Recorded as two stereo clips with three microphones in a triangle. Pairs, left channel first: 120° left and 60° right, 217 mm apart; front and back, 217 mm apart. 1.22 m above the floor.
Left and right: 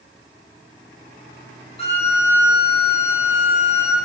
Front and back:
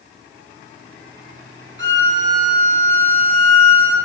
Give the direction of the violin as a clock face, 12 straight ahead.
6 o'clock.